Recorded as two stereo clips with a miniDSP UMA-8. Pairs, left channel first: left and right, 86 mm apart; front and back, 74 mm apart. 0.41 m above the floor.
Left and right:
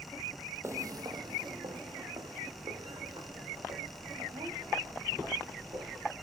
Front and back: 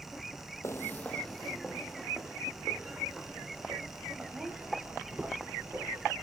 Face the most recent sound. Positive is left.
turn(degrees=-115)